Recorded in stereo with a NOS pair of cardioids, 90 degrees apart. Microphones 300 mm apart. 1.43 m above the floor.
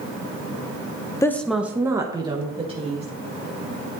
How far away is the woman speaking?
About 0.6 m.